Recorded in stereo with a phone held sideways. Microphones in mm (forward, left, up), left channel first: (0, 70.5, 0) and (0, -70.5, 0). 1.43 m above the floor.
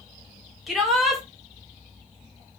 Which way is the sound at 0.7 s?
Centre (ahead or behind).